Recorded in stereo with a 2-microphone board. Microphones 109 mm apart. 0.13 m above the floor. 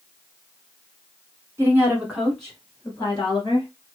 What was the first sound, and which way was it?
A woman speaking, 25° right (ahead or behind).